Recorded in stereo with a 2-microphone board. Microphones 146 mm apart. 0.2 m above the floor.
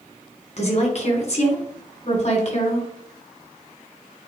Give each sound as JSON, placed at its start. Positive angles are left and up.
{"t": 0.6, "sound": "a woman speaking", "side_deg": 50, "distance_m": 2.5}